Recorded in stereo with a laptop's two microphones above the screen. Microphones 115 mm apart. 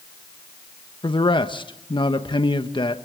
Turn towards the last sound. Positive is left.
turn(degrees=45)  # may be behind; listen again after turning